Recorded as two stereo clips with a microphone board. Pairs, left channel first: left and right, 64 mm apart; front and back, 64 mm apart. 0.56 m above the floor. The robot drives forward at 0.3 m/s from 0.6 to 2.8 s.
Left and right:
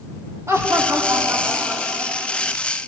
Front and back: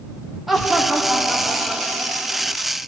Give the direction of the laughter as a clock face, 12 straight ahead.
3 o'clock.